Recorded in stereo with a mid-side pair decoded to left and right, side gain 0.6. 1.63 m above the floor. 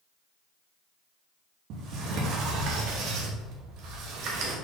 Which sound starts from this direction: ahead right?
A sliding door, at 1.7 s.